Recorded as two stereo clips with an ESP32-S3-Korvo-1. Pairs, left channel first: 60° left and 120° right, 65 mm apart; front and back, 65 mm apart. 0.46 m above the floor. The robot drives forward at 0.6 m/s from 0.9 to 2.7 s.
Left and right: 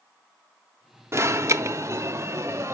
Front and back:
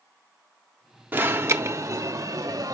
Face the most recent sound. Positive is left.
turn(degrees=-165)